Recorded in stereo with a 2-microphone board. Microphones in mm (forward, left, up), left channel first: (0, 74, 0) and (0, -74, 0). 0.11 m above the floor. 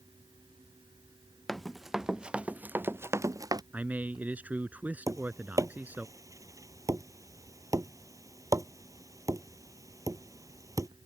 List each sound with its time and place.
1.5 s running footsteps: centre (ahead or behind); by 3.6 s 25° right (ahead or behind)
3.7 s a man speaking: 10° right (ahead or behind)
5.1 s tapping: 20° right (ahead or behind)